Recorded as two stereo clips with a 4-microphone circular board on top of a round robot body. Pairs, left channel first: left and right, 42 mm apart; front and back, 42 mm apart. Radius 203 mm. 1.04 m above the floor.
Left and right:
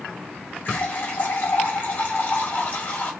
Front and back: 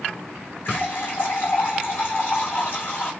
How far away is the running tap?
About 3 m.